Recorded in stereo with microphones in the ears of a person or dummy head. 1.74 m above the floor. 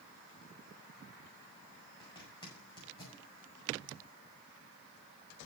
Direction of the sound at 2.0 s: 25° left (ahead or behind).